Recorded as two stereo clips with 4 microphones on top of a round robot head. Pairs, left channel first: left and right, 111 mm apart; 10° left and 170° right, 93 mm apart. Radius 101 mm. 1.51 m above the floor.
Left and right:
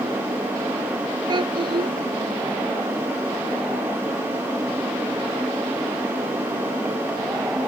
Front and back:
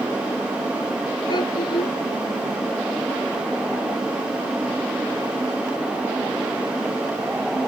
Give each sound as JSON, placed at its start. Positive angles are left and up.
{"t": 1.3, "sound": "a child speaking", "azimuth_deg": -40}